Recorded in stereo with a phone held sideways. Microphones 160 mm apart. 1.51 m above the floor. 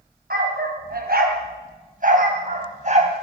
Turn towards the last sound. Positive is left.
turn(degrees=-45)  # may be behind; listen again after turning